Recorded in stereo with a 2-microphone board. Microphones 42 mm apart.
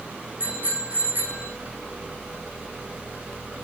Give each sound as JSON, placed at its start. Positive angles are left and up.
{"t": 0.4, "sound": "a bicycle bell", "side_deg": -40, "distance_m": 7.5}